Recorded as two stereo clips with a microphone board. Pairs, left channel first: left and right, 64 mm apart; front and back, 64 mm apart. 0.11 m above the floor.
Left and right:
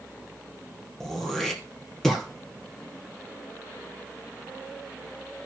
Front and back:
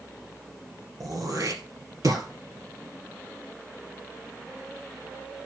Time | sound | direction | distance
1.0 | throat clearing | 175° left | 2 m